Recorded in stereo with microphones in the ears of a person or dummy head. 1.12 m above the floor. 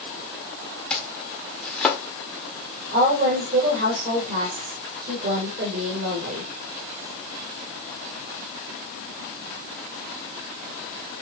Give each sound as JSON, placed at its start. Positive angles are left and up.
{"t": 0.9, "sound": "chopping", "side_deg": 10, "distance_m": 1.3}
{"t": 2.9, "sound": "a woman speaking", "side_deg": -55, "distance_m": 4.0}